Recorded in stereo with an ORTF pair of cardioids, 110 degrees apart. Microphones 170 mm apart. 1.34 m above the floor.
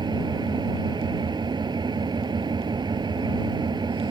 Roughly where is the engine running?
Ahead right.